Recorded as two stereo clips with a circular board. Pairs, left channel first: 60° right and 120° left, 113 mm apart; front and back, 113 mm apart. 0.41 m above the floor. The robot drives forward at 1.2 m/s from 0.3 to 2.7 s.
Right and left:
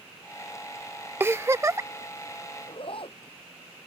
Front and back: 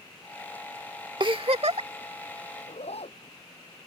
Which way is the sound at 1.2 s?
Straight behind.